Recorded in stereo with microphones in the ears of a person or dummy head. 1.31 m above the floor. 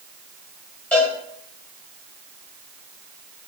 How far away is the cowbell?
About 3.5 m.